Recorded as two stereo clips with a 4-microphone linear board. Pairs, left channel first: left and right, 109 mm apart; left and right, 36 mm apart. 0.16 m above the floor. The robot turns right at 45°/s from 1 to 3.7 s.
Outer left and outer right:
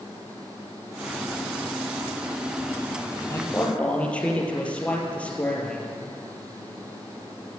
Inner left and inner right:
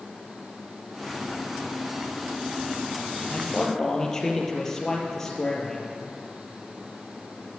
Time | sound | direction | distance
3.3 | a man speaking | 30° left (ahead or behind) | 3.5 m